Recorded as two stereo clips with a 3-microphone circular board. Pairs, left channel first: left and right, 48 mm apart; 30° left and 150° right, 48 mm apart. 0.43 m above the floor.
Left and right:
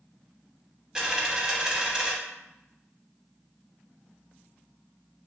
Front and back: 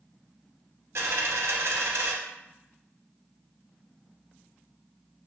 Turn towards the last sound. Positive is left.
turn(degrees=-165)